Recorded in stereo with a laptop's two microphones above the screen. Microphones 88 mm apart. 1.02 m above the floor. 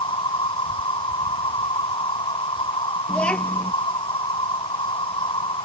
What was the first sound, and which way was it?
An insect, 85° left.